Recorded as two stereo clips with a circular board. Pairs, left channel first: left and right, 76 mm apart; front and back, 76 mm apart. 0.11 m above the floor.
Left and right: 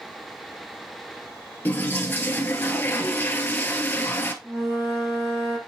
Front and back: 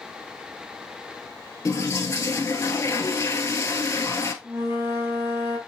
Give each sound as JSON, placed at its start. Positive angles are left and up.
{"t": 1.6, "sound": "a toilet flushing", "azimuth_deg": 35, "distance_m": 1.1}
{"t": 4.4, "sound": "a flute", "azimuth_deg": -130, "distance_m": 3.0}